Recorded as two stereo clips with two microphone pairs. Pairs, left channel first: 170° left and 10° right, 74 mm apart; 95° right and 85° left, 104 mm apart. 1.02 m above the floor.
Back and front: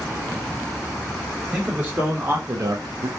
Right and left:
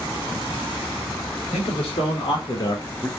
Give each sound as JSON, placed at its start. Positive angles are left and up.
{"t": 1.5, "sound": "a man speaking", "azimuth_deg": -85, "distance_m": 1.9}